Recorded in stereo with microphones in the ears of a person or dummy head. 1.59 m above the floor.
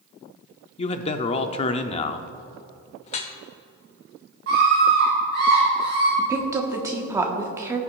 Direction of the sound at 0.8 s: 35° left (ahead or behind).